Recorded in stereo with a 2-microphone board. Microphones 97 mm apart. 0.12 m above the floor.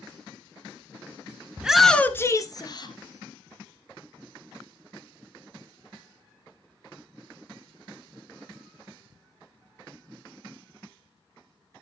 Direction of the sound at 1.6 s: 15° right (ahead or behind).